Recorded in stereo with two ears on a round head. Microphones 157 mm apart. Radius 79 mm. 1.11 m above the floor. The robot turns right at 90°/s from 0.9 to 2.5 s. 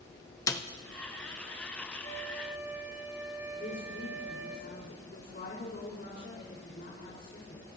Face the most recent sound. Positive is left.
turn(degrees=60)  # may be behind; listen again after turning